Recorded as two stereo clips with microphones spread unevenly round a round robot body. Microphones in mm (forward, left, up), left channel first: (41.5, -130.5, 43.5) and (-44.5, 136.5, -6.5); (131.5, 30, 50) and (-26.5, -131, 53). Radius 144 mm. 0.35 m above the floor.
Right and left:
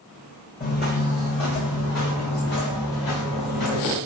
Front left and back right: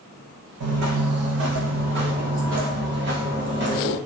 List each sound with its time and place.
0.6 s footsteps: 130° right, 1.2 m; by 4.0 s 90° right, 2.5 m